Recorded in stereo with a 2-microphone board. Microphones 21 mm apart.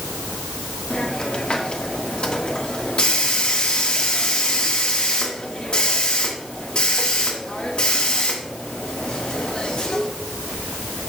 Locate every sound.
0.9 s a hiss: 55° left (ahead or behind), 1.3 m